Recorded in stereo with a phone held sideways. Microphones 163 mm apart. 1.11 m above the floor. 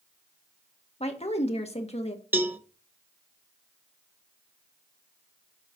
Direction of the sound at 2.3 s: 10° right (ahead or behind).